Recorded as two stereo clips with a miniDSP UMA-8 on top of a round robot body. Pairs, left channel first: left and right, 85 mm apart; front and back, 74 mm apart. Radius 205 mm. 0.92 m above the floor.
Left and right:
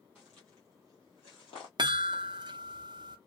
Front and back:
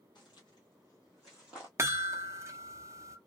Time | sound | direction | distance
0.1 | footsteps | 10° right | 1.2 m
1.8 | a chime | 125° right | 0.6 m